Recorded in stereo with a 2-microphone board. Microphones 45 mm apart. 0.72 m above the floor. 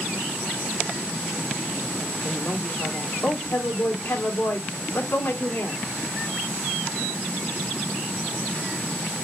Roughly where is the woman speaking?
Left.